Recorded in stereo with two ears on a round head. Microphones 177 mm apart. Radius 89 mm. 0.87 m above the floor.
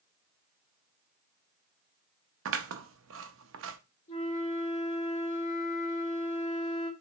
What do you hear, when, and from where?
2.5 s scissors: 70° right (ahead or behind), 0.6 m
4.1 s a flute: 35° left (ahead or behind), 2.0 m